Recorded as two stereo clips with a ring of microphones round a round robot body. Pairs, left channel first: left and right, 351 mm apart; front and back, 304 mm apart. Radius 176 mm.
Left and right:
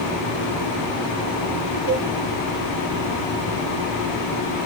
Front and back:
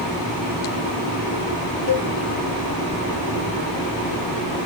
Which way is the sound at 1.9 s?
40° right.